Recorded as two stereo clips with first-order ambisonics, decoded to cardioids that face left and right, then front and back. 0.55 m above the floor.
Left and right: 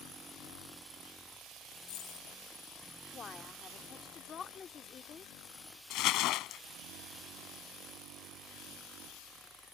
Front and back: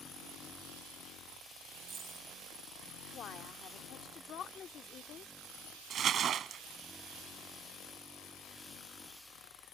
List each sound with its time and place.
1.8 s a dropped coin: 115° left
3.1 s a woman speaking: 40° left
5.9 s crumpling: 120° left